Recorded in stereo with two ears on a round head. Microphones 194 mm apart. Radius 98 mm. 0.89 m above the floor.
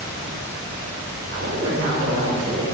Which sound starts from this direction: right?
A woman speaking, at 1.3 s.